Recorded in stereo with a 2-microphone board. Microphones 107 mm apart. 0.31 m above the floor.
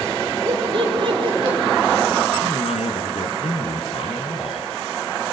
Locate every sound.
0.5 s laughter: 50° right (ahead or behind), 8 m
2.4 s a man speaking: 70° left (ahead or behind), 4.5 m